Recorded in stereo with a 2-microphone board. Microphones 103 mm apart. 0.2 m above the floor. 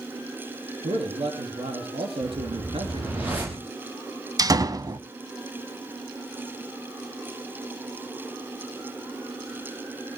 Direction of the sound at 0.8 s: 70° right (ahead or behind).